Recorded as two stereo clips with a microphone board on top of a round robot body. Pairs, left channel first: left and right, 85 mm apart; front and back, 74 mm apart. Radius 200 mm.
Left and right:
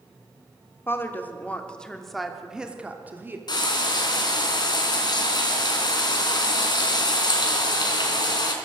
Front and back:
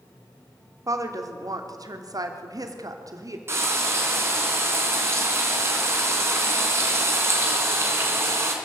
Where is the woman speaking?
150° left, 2.5 m; by 3.4 s 150° right, 2.5 m.